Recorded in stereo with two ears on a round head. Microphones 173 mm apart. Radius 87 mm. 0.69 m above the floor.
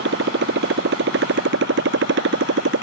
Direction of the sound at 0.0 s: 65° right (ahead or behind).